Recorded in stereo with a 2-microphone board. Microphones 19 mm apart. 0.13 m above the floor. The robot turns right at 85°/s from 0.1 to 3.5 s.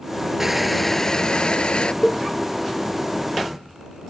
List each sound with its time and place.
0.4 s crushing: 25° right; by 1.9 s 105° left
2.0 s a cowbell: 10° right (ahead or behind); by 2.2 s 5° left (ahead or behind)